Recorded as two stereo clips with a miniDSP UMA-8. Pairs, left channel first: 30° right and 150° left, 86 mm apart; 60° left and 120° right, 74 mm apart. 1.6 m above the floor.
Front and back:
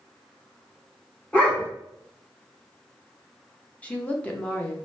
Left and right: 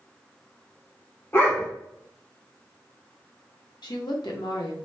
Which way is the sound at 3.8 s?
45° left.